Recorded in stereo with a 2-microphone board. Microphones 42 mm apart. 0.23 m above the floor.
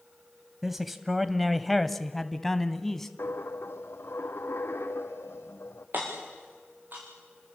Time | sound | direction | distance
0.6 | a man speaking | 5° right (ahead or behind) | 1.1 m
3.2 | a dropped coin | 85° left | 2.0 m
5.9 | hammering | 50° right (ahead or behind) | 7 m